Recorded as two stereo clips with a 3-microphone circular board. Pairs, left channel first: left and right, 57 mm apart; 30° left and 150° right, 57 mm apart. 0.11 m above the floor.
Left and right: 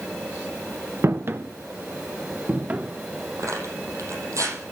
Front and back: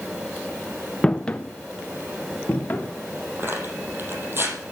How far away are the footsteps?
About 1.1 m.